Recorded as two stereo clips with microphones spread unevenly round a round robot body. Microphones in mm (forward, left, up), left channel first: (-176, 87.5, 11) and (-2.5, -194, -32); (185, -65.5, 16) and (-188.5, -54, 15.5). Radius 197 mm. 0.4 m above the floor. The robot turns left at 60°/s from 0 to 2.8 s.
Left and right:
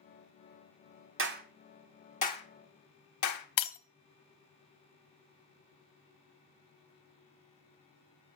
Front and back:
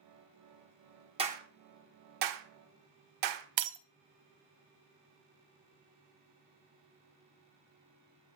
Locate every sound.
1.2 s a clap: 105° right, 1.8 m; by 3.5 s 155° left, 1.8 m
3.6 s breaking glass: 145° left, 1.3 m